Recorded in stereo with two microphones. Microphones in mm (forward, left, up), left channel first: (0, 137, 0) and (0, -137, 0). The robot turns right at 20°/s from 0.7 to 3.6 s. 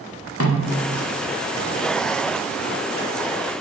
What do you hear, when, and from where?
0.4 s a snare drum: 55° left (ahead or behind), 0.8 m; by 0.8 s 60° left (ahead or behind), 0.8 m